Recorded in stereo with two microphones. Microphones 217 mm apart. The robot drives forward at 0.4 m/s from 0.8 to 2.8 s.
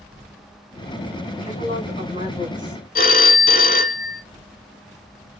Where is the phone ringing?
45° left (ahead or behind), 0.9 m.